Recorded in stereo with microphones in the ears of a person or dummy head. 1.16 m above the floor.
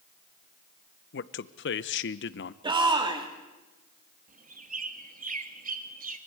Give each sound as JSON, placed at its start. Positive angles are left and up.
{"t": 1.1, "sound": "a man speaking", "side_deg": 55, "distance_m": 0.8}
{"t": 2.6, "sound": "a shout", "side_deg": -25, "distance_m": 3.0}
{"t": 4.3, "sound": "a bird", "side_deg": -45, "distance_m": 1.2}